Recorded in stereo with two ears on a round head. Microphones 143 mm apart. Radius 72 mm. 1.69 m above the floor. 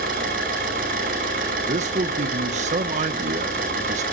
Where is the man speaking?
50° right (ahead or behind), 1.6 m.